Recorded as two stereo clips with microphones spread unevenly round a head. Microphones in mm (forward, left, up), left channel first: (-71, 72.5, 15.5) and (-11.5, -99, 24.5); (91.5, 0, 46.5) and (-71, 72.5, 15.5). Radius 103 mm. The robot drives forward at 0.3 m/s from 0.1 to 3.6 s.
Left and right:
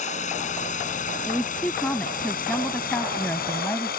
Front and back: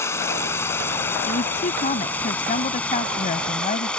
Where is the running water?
50° left; by 4.0 s 60° left.